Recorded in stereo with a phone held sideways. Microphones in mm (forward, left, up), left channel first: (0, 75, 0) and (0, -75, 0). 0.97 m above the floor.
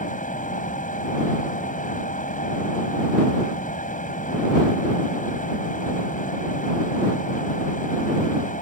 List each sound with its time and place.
0.0 s a fan: 60° left (ahead or behind)